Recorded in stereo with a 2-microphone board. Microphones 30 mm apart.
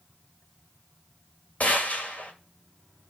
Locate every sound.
1.6 s a gunshot: 60° left (ahead or behind), 1.9 m